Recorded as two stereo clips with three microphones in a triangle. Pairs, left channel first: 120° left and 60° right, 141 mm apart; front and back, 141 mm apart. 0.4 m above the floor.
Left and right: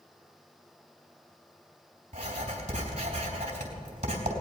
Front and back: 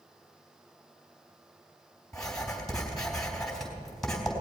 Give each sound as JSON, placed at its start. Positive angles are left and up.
{"t": 2.1, "sound": "writing", "azimuth_deg": -85, "distance_m": 3.5}